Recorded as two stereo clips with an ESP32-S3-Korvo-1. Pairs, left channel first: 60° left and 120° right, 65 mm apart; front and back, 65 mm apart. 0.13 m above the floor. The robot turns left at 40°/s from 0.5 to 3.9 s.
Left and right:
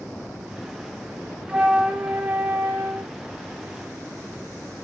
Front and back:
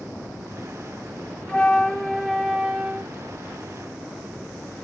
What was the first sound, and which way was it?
A flute, 70° right.